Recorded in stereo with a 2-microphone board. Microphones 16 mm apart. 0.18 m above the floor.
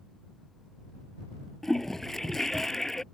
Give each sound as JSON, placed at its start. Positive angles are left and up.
{"t": 1.6, "sound": "a toilet flushing", "side_deg": 30}